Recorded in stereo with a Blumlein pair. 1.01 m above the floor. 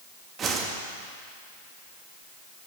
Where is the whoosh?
25° right, 1.3 m.